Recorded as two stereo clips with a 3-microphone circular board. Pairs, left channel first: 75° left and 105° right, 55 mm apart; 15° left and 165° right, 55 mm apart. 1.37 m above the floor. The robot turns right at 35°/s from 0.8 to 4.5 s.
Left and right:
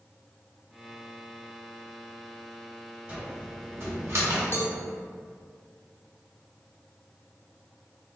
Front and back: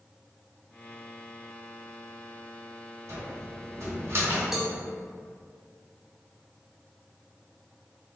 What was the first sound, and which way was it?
A cupboard door, 165° right.